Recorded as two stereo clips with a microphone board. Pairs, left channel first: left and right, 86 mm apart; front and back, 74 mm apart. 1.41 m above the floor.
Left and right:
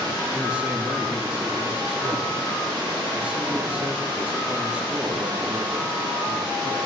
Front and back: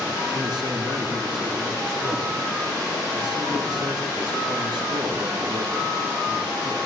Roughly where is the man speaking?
Behind.